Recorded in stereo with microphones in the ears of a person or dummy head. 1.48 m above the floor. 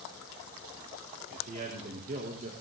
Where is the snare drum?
No snare drum in this recording.